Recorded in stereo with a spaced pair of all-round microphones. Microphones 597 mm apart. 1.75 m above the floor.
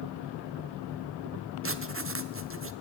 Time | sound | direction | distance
1.6 | writing | 20° right (ahead or behind) | 1.4 m